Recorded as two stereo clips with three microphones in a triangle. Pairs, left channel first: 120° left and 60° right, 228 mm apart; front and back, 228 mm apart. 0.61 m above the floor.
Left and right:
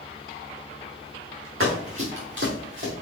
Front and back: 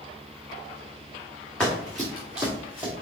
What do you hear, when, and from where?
1.6 s running footsteps: 85° right, 3.5 m; by 2.9 s 100° right, 4 m